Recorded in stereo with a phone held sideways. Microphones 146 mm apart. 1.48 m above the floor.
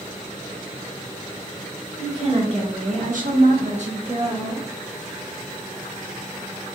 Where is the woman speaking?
40° right (ahead or behind), 1.2 m; by 4.7 s 20° right (ahead or behind), 0.9 m.